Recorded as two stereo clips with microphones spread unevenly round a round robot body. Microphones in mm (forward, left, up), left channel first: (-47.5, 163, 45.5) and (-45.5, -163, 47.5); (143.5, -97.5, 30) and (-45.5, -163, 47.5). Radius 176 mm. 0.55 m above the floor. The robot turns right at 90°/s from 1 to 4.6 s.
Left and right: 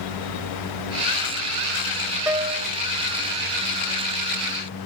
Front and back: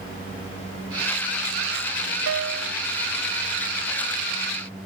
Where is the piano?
175° right; by 2.7 s 130° right.